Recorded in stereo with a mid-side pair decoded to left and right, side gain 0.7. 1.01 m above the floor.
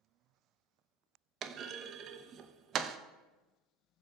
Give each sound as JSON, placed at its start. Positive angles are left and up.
{"t": 1.4, "sound": "a clunk", "azimuth_deg": -40, "distance_m": 0.5}